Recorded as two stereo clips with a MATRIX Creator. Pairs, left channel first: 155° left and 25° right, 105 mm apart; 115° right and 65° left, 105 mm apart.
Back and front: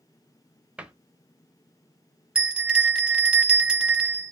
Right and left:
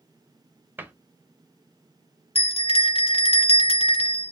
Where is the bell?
100° right, 0.7 m.